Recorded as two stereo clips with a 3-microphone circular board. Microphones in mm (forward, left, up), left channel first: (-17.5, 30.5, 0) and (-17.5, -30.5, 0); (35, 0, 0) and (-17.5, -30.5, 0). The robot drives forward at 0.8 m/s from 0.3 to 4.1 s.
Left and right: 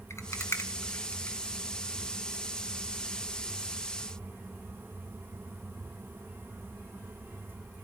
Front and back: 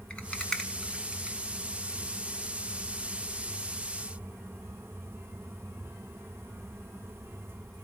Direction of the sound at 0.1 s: 95° left.